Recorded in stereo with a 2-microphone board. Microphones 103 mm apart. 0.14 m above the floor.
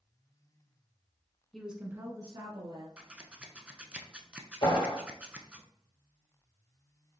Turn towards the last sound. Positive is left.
turn(degrees=60)  # may be behind; listen again after turning